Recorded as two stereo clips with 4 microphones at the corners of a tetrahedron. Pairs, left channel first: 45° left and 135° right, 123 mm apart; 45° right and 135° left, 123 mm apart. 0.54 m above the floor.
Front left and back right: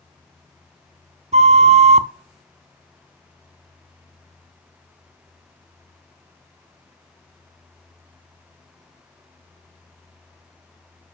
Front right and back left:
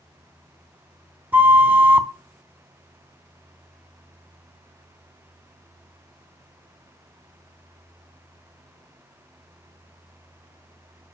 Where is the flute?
150° right, 0.5 m.